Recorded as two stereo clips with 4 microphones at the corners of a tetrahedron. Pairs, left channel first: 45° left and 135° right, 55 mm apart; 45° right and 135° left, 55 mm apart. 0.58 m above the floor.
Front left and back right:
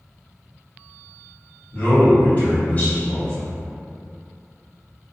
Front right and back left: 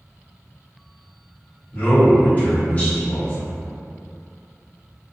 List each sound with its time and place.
1.7 s a man speaking: 5° left, 1.4 m